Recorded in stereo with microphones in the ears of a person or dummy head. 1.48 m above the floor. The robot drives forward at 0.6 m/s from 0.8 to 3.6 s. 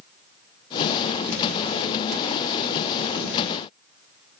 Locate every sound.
Only background noise.